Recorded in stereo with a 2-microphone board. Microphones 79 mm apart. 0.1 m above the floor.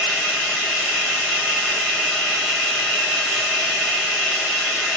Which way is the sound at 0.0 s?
5° left (ahead or behind).